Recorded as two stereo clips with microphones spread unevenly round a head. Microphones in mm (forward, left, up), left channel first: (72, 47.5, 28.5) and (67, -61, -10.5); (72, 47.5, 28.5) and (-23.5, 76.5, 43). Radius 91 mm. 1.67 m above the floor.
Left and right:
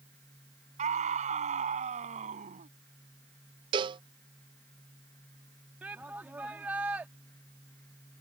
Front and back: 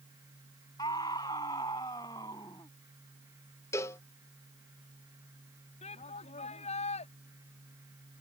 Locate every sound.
0.8 s a scream: 85° right
3.7 s a cowbell: 75° right
5.8 s a shout: 15° right